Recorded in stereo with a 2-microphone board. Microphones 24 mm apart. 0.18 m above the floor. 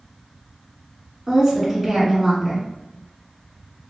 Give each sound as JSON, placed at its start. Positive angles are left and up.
{"t": 1.3, "sound": "a woman speaking", "side_deg": -25, "distance_m": 1.4}